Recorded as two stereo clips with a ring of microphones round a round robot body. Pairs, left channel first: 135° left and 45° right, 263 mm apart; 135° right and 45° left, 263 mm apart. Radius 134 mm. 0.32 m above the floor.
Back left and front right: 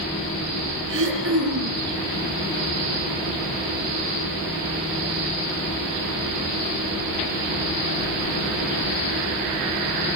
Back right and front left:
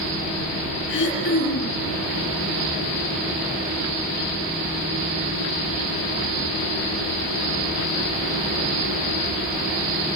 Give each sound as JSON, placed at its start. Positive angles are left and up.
{"t": 0.9, "sound": "throat clearing", "azimuth_deg": -85, "distance_m": 7.5}